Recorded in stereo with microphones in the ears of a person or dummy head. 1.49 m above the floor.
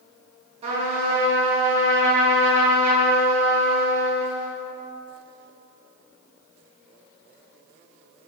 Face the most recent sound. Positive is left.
turn(degrees=-30)  # may be behind; listen again after turning